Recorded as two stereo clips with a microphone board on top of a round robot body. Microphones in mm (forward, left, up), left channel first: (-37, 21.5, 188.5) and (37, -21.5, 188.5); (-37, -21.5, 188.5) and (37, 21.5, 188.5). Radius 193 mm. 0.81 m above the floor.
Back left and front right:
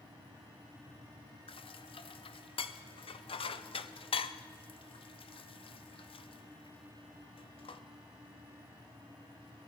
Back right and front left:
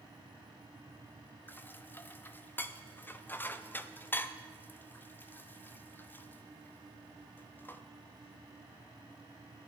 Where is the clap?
I don't hear a clap.